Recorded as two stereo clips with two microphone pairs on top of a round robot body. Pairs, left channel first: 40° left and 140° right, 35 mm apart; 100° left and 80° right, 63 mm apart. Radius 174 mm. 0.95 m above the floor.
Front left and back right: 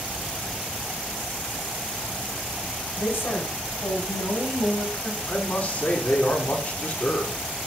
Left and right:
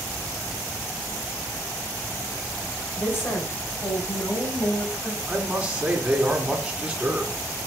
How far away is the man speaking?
About 3.5 m.